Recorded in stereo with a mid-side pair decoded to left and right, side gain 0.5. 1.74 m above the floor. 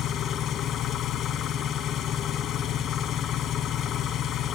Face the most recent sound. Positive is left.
turn(degrees=70)